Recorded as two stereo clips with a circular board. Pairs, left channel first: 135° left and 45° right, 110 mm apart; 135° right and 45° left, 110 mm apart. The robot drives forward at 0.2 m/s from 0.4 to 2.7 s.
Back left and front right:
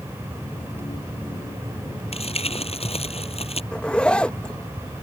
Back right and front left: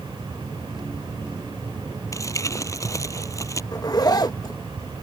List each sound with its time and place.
2.1 s crumpling: 165° left
3.7 s a zipper: 150° right